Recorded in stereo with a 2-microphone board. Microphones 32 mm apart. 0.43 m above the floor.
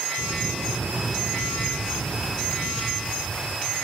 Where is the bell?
40° left (ahead or behind), 8.5 m.